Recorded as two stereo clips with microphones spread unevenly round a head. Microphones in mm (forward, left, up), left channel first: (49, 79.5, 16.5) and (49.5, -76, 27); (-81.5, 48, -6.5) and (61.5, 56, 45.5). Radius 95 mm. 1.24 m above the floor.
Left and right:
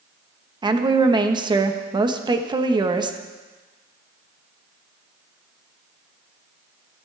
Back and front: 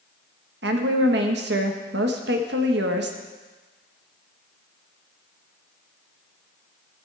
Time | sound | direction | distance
0.6 | a woman speaking | 30° right | 1.2 m